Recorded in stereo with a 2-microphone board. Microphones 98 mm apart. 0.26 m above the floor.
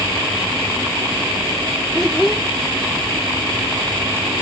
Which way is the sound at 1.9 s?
5° left (ahead or behind).